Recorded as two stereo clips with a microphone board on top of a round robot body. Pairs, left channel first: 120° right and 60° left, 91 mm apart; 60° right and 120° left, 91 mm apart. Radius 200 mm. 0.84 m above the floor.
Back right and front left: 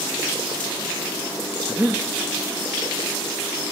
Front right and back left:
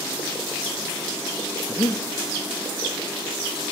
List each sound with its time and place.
1.7 s breathing: 15° right, 1.2 m